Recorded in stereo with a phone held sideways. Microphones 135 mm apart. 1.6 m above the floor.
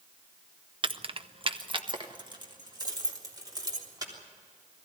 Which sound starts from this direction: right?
Keys jangling, at 0.8 s.